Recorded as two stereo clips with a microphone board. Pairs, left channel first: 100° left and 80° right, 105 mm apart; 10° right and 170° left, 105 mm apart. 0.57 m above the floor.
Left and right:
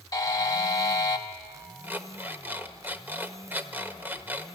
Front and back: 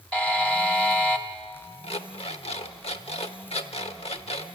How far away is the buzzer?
About 1.3 m.